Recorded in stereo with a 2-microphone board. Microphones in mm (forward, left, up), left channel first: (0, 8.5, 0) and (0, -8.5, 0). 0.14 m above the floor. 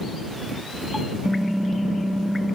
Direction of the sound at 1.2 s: 50° right (ahead or behind).